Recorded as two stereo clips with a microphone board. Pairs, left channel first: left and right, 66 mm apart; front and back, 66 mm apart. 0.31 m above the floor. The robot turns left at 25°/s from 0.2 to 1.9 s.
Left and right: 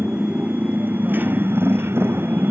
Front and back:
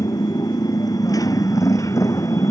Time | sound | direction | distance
0.0 | a motorcycle | 20° right | ?